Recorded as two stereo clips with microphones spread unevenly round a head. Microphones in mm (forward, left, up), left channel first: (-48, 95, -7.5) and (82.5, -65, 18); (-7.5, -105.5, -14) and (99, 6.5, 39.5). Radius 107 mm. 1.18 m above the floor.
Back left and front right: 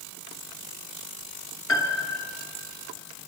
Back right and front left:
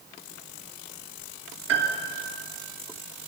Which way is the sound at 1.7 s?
55° left.